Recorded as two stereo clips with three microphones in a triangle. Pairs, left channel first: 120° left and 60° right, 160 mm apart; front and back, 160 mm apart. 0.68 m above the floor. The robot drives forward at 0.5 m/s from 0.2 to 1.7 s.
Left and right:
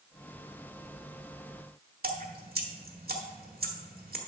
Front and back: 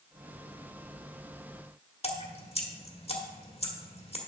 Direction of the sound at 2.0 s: 50° right.